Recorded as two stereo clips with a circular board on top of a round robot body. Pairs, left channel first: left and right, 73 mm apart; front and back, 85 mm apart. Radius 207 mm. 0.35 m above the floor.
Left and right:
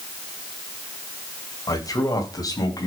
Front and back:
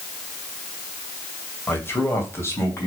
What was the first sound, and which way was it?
A man speaking, 60° left.